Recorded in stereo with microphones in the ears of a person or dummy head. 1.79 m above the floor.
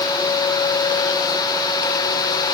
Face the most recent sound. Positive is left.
No sound to turn to.